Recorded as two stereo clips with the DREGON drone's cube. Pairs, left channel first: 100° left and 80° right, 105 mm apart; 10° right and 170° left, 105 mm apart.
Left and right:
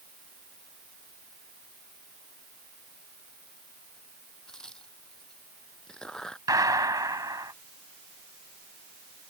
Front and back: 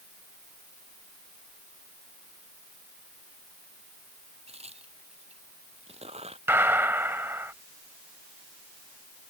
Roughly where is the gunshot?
Behind right.